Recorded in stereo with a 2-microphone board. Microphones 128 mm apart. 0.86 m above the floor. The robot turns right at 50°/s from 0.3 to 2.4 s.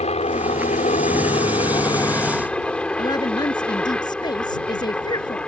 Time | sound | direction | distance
0.0 | a helicopter | 65° left | ?
3.0 | a woman speaking | 35° left (ahead or behind) | ?